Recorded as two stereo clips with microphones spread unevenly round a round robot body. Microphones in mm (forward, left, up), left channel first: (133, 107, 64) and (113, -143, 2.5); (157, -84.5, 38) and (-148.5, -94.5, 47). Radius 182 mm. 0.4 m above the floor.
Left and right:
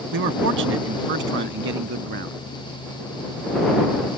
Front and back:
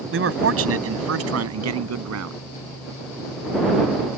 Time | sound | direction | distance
0.1 | a man speaking | 135° right | ?